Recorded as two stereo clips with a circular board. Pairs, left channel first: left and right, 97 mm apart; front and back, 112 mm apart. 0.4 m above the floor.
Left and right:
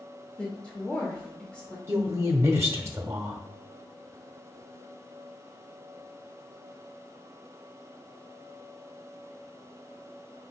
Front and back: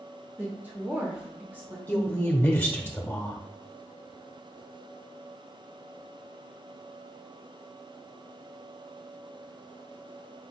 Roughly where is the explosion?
I don't hear an explosion.